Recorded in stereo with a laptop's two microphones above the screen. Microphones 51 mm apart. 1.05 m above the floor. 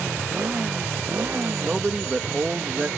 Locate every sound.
0.0 s a motorcycle: 40° right (ahead or behind); by 3.0 s 60° right (ahead or behind)
1.6 s a man speaking: 20° right (ahead or behind)